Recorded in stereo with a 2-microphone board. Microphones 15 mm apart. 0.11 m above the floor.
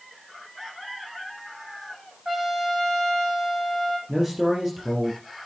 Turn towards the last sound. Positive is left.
turn(degrees=-10)  # may be behind; listen again after turning